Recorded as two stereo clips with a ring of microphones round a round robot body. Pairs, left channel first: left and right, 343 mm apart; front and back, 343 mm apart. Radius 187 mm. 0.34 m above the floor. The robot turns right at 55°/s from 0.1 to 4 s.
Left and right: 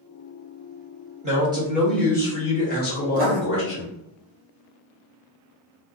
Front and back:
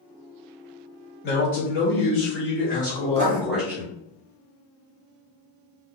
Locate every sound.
1.2 s a man speaking: 35° right, 1.6 m; by 3.9 s 110° left, 1.6 m
3.1 s writing: 140° right, 1.1 m; by 3.4 s 125° right, 1.1 m